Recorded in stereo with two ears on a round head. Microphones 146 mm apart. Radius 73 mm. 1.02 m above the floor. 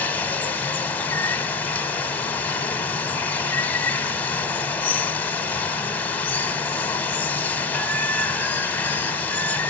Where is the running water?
10° left (ahead or behind), 0.9 m.